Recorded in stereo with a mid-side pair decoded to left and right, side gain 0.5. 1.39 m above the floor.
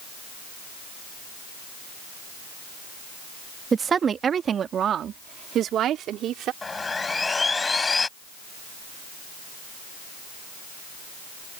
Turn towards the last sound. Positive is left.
turn(degrees=25)